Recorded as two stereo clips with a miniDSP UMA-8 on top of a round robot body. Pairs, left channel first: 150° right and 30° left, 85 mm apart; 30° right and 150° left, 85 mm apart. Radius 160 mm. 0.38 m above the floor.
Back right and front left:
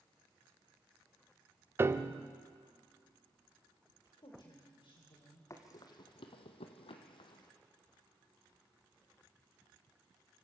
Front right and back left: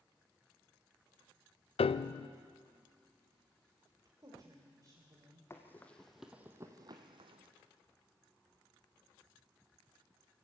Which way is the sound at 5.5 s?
95° right.